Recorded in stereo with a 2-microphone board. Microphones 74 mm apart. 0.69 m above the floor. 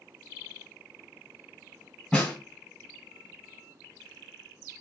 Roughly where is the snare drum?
Centre.